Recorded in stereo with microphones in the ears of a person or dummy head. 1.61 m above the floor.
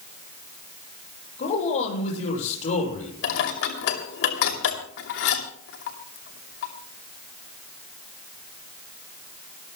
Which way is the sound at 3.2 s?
70° left (ahead or behind).